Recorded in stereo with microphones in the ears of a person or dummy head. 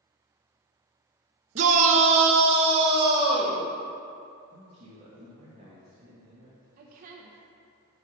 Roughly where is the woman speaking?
Right.